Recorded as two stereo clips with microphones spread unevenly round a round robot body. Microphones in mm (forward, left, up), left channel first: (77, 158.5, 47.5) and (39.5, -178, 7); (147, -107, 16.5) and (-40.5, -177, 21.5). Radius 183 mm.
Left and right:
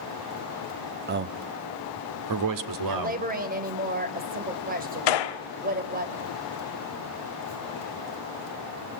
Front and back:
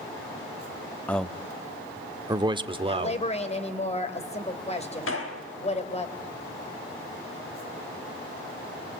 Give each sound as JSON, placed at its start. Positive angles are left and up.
{"t": 1.1, "sound": "a man speaking", "azimuth_deg": -60, "distance_m": 0.8}
{"t": 2.9, "sound": "a woman speaking", "azimuth_deg": -35, "distance_m": 3.0}
{"t": 5.1, "sound": "a gunshot", "azimuth_deg": 75, "distance_m": 1.2}